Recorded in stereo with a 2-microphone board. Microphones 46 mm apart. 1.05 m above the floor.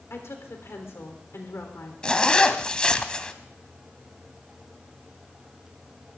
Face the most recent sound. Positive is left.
turn(degrees=25)  # may be behind; listen again after turning